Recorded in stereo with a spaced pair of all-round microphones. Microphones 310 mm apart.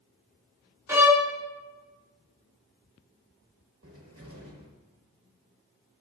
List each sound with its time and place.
0.9 s a violin: 10° right (ahead or behind), 0.7 m
3.8 s a cupboard door: 45° right (ahead or behind), 1.1 m